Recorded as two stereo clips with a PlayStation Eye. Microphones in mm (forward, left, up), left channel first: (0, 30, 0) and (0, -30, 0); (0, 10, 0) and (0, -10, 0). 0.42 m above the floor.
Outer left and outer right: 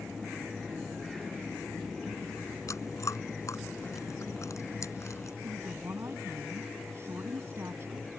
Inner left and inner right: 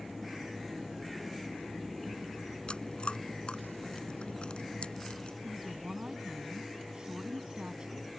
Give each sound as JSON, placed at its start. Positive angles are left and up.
{"t": 2.7, "sound": "chewing", "side_deg": 60}
{"t": 5.4, "sound": "a woman speaking", "side_deg": -50}